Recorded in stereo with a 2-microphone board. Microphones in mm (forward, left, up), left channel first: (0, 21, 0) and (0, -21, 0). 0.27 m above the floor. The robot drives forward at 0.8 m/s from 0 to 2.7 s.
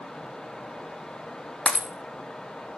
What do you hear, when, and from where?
1.7 s breaking glass: 30° left (ahead or behind), 0.9 m; by 1.9 s 25° left (ahead or behind), 1.1 m